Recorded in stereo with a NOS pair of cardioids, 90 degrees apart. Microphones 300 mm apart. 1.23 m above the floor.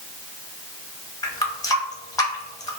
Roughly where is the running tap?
Ahead.